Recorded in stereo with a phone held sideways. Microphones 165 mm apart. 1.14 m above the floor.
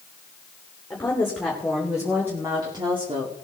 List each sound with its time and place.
0.9 s a woman speaking: 10° left (ahead or behind), 3 m; by 3.3 s 40° right (ahead or behind), 2 m